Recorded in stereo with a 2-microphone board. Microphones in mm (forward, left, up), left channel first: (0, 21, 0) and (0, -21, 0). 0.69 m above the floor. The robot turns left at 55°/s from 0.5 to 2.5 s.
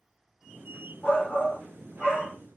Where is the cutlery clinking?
I don't hear cutlery clinking.